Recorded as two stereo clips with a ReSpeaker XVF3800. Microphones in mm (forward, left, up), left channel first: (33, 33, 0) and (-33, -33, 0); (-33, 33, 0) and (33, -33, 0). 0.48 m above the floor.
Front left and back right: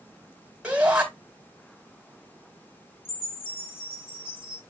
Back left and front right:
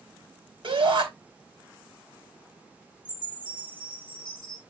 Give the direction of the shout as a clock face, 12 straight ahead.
2 o'clock.